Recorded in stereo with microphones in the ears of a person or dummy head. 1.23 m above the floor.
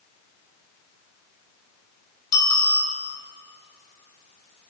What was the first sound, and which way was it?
A bicycle bell, 20° left (ahead or behind).